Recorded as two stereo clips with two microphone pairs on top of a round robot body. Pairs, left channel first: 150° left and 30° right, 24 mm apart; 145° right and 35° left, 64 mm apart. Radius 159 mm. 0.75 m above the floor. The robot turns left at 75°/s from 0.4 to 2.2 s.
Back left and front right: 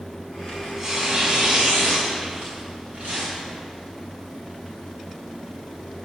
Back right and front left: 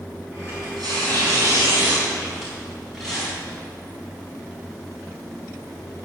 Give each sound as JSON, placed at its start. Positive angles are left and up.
{"t": 0.5, "sound": "tearing paper", "azimuth_deg": 70, "distance_m": 5.0}